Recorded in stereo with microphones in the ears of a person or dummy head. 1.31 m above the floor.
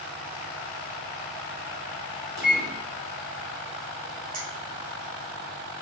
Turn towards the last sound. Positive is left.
turn(degrees=-70)  # may be behind; listen again after turning